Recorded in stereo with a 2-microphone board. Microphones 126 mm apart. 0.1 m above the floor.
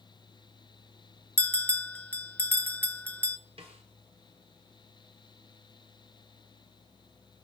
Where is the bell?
15° left (ahead or behind), 0.5 m.